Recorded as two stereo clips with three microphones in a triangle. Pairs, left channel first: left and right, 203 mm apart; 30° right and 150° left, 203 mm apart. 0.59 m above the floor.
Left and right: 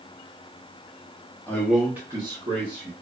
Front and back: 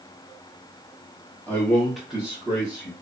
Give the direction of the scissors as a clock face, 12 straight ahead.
I don't hear scissors.